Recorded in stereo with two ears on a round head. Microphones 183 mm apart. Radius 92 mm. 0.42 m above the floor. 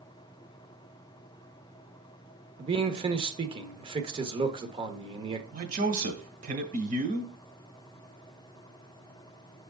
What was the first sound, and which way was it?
A man speaking, 25° right (ahead or behind).